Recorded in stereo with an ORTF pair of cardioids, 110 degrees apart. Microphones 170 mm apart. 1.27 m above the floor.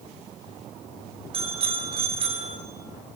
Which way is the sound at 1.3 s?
35° right.